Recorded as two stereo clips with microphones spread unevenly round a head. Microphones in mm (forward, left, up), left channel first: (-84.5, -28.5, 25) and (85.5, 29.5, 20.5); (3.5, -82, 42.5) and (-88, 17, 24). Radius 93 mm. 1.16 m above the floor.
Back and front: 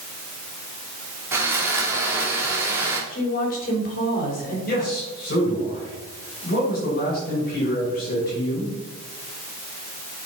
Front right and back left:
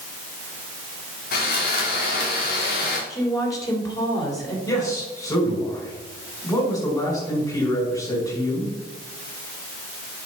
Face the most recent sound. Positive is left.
turn(degrees=-115)